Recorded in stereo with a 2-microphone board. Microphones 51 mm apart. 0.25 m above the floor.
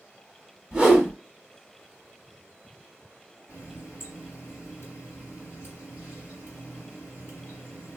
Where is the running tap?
55° left (ahead or behind), 1.4 m.